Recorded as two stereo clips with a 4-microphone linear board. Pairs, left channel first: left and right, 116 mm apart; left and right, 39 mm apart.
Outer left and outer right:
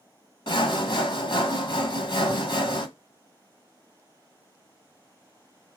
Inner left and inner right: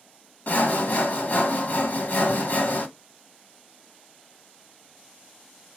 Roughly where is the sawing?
Left.